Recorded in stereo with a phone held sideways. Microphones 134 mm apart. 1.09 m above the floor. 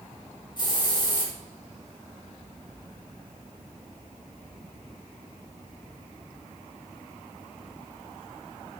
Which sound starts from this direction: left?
A hiss, at 0.6 s.